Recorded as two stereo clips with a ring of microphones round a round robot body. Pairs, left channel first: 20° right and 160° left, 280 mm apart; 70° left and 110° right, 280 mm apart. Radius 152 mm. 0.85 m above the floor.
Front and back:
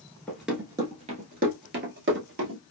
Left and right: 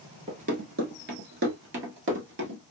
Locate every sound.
0.3 s running footsteps: 100° right, 0.8 m; by 2.6 s 160° right, 1.6 m